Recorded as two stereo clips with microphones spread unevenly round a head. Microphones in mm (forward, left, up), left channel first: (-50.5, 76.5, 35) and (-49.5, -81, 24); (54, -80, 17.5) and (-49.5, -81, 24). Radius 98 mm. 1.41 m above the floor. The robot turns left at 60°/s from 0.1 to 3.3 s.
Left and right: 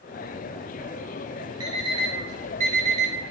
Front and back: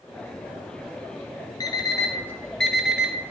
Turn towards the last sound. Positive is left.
turn(degrees=-125)